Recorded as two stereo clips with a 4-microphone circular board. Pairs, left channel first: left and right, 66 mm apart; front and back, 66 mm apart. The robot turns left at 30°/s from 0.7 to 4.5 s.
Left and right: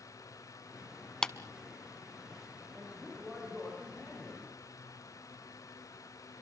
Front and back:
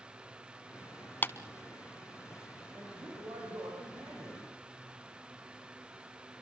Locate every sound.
1.2 s a clap: 20° left, 0.9 m; by 1.3 s 15° left, 0.9 m
2.7 s a man speaking: 165° right, 8 m; by 4.5 s 145° left, 8 m